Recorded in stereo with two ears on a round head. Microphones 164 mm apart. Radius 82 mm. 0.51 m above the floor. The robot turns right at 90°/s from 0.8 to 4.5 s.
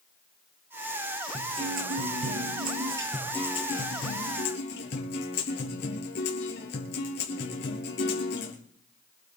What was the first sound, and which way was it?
A guitar, 170° right.